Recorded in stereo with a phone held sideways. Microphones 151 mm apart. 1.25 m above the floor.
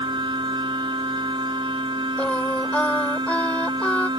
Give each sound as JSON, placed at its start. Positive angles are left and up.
{"t": 0.0, "sound": "a machine running", "side_deg": -35}
{"t": 2.2, "sound": "singing", "side_deg": 10}